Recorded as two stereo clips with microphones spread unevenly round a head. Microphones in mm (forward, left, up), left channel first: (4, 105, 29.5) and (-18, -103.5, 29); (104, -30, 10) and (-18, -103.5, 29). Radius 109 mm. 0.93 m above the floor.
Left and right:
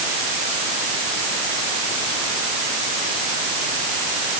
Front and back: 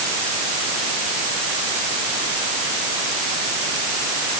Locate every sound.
Only background noise.